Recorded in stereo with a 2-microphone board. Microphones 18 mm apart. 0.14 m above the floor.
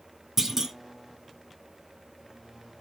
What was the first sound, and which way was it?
A clunk, 25° right (ahead or behind).